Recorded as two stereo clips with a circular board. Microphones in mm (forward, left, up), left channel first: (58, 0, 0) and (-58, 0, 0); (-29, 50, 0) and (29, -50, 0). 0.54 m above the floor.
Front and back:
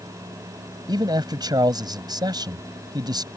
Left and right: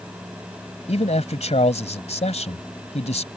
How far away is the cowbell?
I don't hear a cowbell.